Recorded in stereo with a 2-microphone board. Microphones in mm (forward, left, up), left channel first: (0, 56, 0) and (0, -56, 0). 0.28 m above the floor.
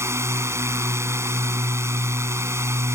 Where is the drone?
25° right (ahead or behind).